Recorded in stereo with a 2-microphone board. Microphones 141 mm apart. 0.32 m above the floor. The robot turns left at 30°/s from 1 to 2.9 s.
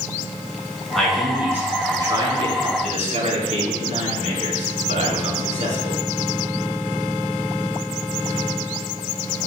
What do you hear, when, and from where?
0.9 s a man speaking: straight ahead, 3 m; by 6.0 s 55° right, 3 m